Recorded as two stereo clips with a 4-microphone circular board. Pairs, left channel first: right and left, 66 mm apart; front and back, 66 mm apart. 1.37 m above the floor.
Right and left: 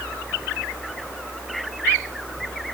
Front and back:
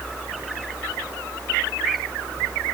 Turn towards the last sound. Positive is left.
No sound to turn to.